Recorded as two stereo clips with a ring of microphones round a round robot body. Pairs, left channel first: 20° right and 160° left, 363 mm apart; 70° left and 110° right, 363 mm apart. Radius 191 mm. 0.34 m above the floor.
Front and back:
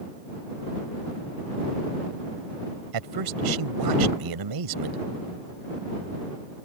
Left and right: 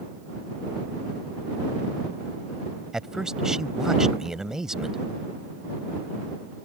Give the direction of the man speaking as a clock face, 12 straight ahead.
7 o'clock.